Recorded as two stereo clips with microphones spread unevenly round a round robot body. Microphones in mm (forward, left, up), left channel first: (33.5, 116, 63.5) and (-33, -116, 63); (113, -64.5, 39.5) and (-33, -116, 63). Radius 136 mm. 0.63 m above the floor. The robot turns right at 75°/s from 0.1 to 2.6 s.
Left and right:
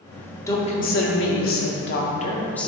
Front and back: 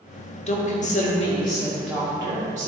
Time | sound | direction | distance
0.5 | a woman speaking | straight ahead | 1.3 m